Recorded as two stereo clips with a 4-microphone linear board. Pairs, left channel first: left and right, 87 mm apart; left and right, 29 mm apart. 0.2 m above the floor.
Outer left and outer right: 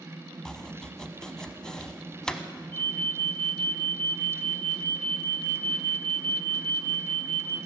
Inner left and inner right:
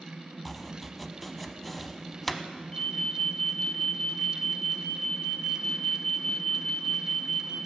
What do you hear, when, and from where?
0.5 s chopping: 10° left (ahead or behind), 0.7 m
2.7 s an alarm: 20° left (ahead or behind), 1.4 m